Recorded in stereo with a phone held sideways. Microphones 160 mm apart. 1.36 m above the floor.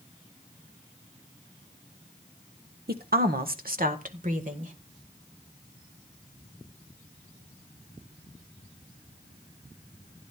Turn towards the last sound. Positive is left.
turn(degrees=-55)  # may be behind; listen again after turning